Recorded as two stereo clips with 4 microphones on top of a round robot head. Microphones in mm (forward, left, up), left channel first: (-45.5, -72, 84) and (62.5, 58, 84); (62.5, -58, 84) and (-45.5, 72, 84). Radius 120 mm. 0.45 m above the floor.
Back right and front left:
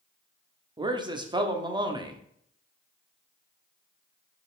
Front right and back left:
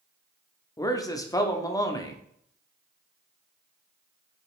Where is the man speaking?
5° left, 1.2 m.